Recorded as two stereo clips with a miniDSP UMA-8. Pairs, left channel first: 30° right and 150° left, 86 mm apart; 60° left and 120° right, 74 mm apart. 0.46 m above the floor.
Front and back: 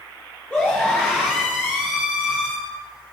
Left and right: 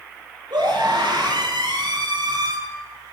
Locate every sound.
0.5 s a scream: 105° right, 8 m